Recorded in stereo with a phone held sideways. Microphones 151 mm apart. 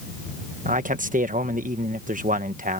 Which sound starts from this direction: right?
A man speaking, at 0.7 s.